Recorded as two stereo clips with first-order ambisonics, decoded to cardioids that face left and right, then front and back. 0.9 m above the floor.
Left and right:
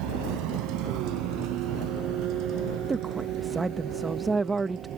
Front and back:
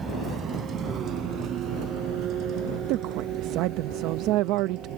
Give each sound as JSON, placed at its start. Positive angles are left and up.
{"t": 0.0, "sound": "a vehicle", "azimuth_deg": -110}
{"t": 2.9, "sound": "a woman speaking", "azimuth_deg": -165}